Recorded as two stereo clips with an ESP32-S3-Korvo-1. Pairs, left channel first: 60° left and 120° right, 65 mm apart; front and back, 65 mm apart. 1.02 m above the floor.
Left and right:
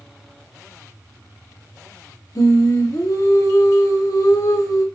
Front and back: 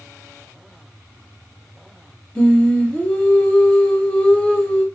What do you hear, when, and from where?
2.4 s singing: 70° left, 0.6 m